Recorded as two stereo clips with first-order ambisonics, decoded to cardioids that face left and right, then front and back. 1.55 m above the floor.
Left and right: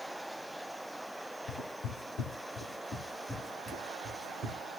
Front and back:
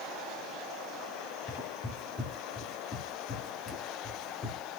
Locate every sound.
1.5 s footsteps: 60° left, 2 m; by 4.6 s 25° right, 1.7 m